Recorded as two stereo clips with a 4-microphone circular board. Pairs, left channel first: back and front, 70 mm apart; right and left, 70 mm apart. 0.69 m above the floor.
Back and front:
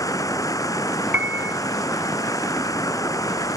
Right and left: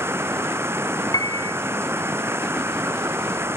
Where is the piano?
65° right.